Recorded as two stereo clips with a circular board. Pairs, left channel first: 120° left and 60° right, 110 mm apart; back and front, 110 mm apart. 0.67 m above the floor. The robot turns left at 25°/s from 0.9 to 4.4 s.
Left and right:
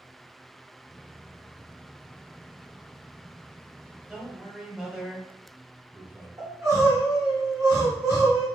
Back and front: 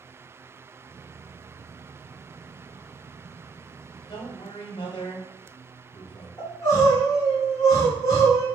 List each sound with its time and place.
4.1 s a man speaking: 135° right, 1.9 m; by 6.3 s 140° right, 1.9 m
6.4 s crying: 125° right, 2.5 m